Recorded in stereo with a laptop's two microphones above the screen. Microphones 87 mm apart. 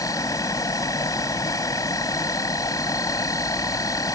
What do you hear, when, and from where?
0.0 s an insect: 40° left (ahead or behind)